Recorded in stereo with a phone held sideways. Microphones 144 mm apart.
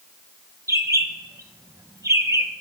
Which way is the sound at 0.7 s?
20° right (ahead or behind).